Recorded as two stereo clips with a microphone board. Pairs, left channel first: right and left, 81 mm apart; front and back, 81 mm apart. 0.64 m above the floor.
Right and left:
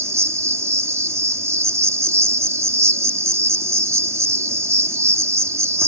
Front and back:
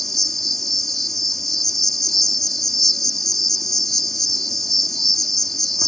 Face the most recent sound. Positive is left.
turn(degrees=85)